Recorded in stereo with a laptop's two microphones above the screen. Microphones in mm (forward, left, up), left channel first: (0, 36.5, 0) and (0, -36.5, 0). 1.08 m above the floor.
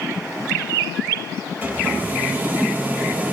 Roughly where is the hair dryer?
Right.